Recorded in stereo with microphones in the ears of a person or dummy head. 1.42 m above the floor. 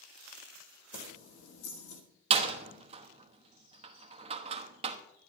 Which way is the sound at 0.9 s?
80° left.